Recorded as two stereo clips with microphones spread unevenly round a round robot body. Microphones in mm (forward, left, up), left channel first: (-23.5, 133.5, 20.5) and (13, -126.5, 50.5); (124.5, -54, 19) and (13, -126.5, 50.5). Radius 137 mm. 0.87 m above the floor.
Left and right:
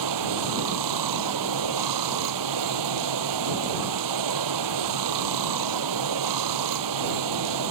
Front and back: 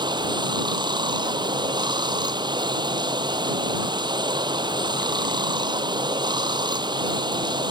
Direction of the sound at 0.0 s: 90° right.